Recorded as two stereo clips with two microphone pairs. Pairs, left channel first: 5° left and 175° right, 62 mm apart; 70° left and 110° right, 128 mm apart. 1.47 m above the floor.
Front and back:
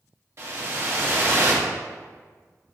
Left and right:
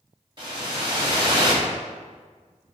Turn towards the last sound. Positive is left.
turn(degrees=-150)